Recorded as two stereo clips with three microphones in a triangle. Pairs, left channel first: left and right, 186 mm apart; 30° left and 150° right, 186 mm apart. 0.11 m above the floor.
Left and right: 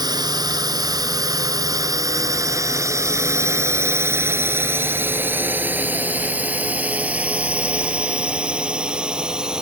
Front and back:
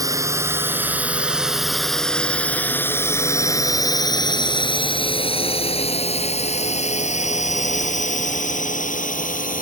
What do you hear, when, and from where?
0.0 s a drone: 115° right; by 9.6 s 5° right